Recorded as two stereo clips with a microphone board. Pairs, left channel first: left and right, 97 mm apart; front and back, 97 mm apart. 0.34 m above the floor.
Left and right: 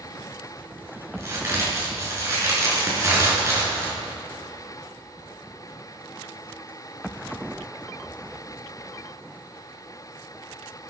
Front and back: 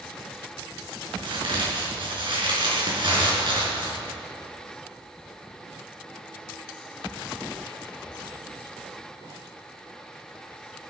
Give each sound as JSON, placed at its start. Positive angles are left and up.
{"t": 1.2, "sound": "a crack", "azimuth_deg": -150, "distance_m": 5.5}